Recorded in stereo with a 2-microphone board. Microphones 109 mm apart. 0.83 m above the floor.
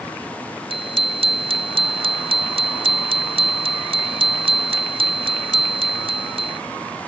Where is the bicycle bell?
60° right (ahead or behind).